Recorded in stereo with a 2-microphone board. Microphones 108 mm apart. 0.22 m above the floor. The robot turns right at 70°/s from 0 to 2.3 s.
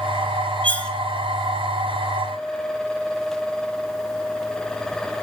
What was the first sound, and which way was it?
Cutlery clinking, 15° left (ahead or behind).